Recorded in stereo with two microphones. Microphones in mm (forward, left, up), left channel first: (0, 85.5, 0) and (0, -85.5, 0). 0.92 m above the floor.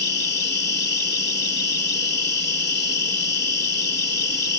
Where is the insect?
85° left.